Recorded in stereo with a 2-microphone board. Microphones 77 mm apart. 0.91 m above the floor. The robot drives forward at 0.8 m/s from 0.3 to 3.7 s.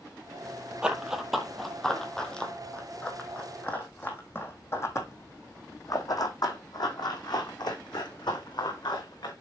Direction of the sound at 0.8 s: 10° right (ahead or behind).